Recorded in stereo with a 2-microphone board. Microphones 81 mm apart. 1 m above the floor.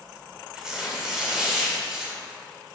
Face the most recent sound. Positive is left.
turn(degrees=-5)  # may be behind; listen again after turning